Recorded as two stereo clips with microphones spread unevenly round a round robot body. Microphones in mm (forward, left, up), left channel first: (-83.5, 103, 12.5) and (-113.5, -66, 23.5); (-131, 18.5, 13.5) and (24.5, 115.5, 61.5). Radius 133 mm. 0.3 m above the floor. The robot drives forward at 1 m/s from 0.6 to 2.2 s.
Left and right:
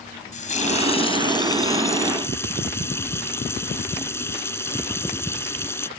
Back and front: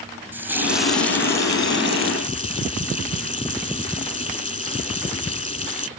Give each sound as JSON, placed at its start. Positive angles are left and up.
{"t": 0.3, "sound": "a running tap", "azimuth_deg": 120}